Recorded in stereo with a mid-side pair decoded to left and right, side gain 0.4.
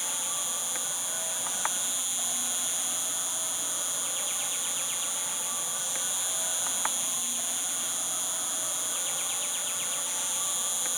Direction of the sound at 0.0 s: 10° right.